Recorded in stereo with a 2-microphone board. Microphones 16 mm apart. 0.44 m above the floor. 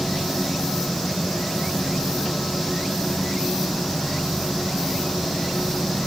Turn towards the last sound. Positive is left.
No sound to turn to.